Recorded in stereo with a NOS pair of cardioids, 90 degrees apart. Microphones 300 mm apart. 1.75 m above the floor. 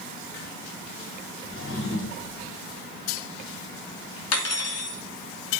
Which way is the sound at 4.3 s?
60° left.